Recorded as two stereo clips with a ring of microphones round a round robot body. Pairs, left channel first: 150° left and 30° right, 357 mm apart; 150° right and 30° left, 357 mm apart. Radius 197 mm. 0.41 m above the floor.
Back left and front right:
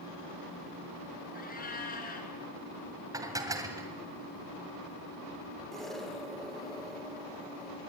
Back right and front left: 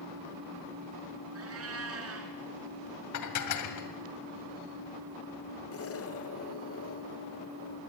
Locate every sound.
1.4 s a cat meowing: 85° left, 3.5 m
3.1 s dishes clattering: 110° right, 2 m
5.7 s an explosion: 120° right, 1.7 m